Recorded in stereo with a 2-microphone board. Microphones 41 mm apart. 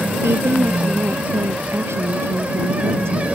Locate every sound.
0.2 s a woman speaking: 85° right